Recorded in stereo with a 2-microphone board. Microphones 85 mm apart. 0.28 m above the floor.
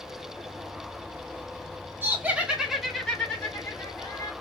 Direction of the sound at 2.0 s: 25° right (ahead or behind).